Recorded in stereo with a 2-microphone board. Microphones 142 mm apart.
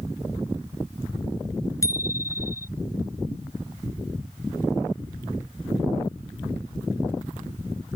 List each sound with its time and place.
1.8 s a bicycle bell: 20° left (ahead or behind)